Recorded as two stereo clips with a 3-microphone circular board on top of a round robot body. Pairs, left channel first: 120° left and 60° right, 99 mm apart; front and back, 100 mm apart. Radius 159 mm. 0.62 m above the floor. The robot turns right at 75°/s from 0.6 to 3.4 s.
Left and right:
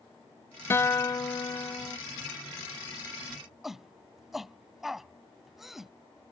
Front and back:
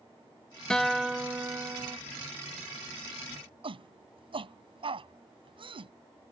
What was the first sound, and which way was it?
A guitar, 75° left.